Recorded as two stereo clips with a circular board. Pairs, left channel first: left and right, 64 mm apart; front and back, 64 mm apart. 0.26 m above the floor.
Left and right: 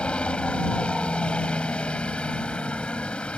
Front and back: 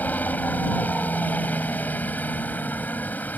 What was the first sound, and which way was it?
A helicopter, 35° left.